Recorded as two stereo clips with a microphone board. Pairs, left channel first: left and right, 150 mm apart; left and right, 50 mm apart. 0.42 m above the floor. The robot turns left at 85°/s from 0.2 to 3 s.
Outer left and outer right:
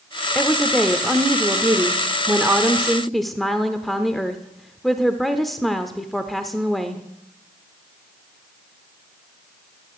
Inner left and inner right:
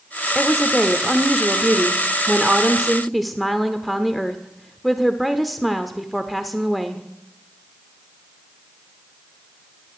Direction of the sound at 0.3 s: 15° left (ahead or behind).